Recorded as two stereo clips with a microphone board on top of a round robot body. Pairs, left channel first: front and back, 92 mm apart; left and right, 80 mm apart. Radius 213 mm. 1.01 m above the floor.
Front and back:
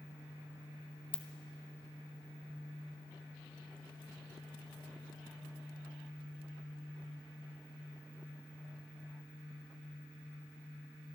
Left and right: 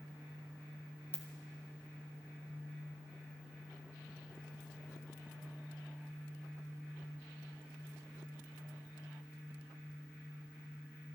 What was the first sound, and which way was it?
A ringtone, 20° left.